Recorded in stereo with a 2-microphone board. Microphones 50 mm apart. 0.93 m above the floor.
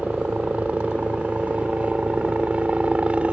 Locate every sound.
0.0 s a helicopter: 25° right (ahead or behind)